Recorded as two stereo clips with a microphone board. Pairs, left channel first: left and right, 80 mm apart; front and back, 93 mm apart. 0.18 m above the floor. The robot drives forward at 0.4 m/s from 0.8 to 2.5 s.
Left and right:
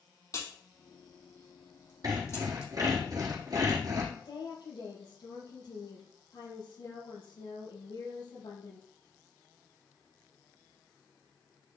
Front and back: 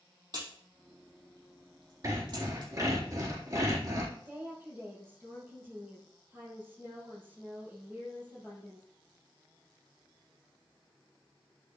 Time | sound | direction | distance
0.3 | a crack | 135° left | 5.5 m
2.0 | sawing | 130° right | 4 m
4.2 | a woman speaking | 110° left | 5.5 m